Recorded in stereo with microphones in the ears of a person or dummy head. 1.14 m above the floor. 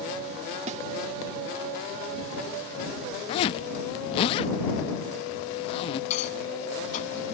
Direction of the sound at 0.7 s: 40° right (ahead or behind).